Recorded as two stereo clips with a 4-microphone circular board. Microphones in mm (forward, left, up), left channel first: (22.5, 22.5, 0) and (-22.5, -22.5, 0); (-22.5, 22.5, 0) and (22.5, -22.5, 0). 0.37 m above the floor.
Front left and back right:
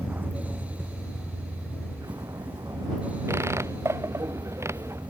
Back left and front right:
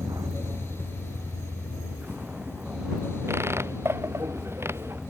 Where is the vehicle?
70° right; by 5.1 s 130° right.